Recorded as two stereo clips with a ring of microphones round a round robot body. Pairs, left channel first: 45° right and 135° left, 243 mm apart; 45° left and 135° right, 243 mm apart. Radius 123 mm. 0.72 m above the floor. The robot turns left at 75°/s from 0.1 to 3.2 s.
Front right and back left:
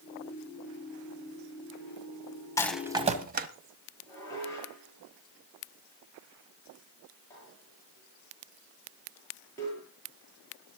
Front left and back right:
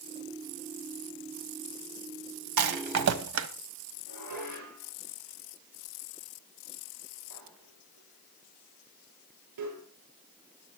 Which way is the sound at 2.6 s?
120° right.